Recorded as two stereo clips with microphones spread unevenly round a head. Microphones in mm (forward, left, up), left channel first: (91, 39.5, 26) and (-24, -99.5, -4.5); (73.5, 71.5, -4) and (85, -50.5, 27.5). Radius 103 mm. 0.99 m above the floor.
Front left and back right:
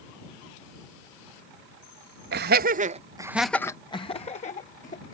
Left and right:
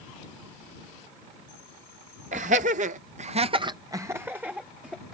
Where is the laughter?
135° right; by 5.2 s 5° left.